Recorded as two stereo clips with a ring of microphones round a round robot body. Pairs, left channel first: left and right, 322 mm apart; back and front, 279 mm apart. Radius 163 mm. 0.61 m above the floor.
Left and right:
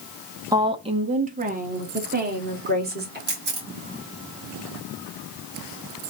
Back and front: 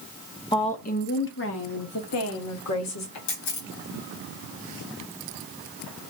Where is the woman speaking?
145° right, 0.7 m; by 3.2 s 150° right, 1.9 m.